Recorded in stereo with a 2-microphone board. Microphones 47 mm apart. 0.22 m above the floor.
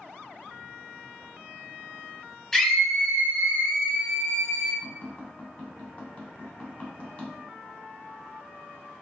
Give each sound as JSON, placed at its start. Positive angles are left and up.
{"t": 2.5, "sound": "a scream", "side_deg": 10, "distance_m": 1.1}
{"t": 4.8, "sound": "tapping", "side_deg": 25, "distance_m": 1.5}